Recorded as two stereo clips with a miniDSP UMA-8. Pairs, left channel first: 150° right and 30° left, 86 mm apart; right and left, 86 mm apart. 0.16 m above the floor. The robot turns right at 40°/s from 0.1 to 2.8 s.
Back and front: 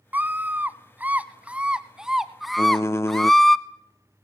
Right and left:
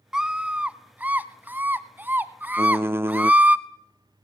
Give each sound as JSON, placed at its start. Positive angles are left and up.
{"t": 0.1, "sound": "a scream", "azimuth_deg": 20, "distance_m": 1.1}
{"t": 2.6, "sound": "typing on a keyboard", "azimuth_deg": 140, "distance_m": 0.6}